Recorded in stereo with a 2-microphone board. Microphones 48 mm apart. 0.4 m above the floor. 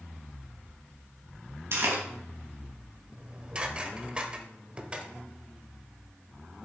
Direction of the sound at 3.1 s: 20° right (ahead or behind).